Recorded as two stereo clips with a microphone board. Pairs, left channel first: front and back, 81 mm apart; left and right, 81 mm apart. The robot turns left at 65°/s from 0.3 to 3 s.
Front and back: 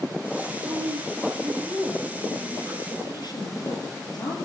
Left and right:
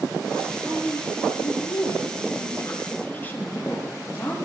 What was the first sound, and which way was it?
A woman speaking, 175° left.